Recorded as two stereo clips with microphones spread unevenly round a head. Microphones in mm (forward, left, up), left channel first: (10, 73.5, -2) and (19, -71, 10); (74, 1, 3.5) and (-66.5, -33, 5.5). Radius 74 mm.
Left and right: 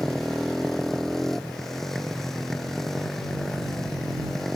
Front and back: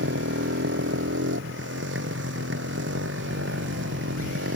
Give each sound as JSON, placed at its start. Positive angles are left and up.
{"t": 0.0, "sound": "a motorcycle", "azimuth_deg": 180}